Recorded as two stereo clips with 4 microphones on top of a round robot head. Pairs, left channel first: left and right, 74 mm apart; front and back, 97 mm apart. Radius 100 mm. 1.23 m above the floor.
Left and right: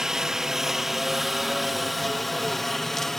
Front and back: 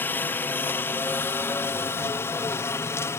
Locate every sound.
0.0 s a helicopter: 20° right; by 3.2 s 10° left